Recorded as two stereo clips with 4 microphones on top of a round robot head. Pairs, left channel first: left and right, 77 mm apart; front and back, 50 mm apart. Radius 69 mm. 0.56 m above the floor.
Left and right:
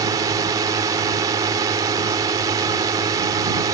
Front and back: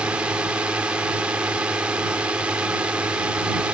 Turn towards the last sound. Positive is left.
turn(degrees=-115)